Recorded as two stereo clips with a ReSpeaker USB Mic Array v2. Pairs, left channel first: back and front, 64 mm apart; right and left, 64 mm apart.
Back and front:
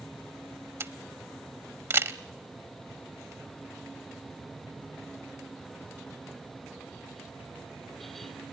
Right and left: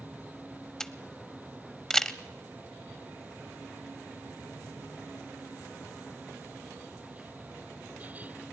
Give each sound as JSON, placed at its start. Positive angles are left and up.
{"t": 0.8, "sound": "a camera shutter", "azimuth_deg": -15, "distance_m": 0.6}